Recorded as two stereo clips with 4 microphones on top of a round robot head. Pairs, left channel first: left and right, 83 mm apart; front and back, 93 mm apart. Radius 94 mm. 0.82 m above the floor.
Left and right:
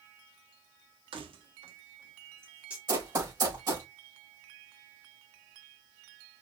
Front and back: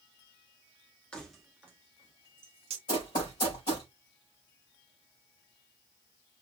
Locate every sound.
1.1 s keys jangling: 80° right, 0.9 m; by 2.8 s 170° right, 0.9 m
2.9 s running footsteps: 50° right, 4 m